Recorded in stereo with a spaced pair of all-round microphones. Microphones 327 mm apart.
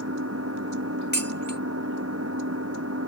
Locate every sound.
0.0 s an engine running: 45° right (ahead or behind)
1.1 s dishes clattering: 30° left (ahead or behind)